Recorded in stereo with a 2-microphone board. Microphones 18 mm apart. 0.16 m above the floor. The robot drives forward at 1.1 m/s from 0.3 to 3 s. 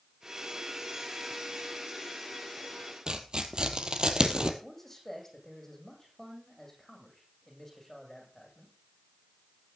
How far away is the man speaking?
About 8.5 m.